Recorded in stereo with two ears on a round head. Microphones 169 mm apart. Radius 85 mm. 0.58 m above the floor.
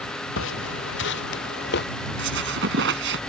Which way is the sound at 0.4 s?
75° left (ahead or behind).